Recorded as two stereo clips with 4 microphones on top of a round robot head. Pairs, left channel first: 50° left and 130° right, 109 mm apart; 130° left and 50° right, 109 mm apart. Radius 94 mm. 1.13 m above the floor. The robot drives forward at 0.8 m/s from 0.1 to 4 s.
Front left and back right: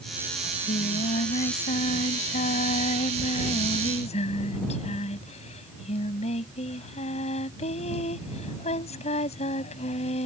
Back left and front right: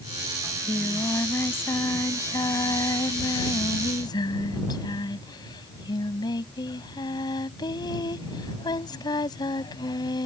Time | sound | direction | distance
0.4 | singing | 55° left | ?